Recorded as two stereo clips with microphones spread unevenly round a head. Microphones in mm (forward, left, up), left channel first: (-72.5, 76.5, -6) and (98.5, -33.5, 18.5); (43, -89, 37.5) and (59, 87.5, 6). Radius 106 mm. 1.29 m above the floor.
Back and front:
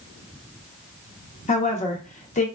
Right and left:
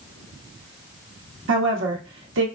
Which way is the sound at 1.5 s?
90° left.